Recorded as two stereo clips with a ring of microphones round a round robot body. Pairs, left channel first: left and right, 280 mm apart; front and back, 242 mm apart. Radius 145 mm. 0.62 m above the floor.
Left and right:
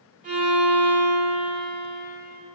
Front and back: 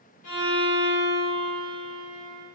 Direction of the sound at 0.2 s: 25° right.